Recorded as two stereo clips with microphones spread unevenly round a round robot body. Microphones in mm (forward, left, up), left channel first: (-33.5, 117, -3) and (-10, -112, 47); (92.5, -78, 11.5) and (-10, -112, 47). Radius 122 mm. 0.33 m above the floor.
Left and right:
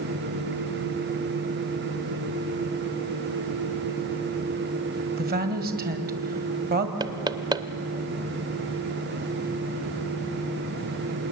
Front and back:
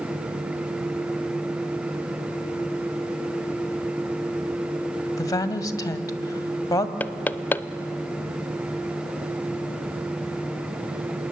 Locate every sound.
5.2 s a woman speaking: 25° right, 1.7 m
7.0 s knocking: straight ahead, 0.6 m